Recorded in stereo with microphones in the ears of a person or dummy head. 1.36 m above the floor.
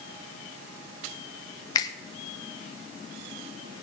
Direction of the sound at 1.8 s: 25° left (ahead or behind).